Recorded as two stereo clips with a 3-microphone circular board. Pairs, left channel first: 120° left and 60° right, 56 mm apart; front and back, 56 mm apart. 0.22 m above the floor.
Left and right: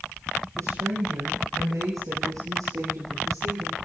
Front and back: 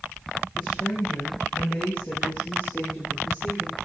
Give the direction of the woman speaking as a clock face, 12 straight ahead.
2 o'clock.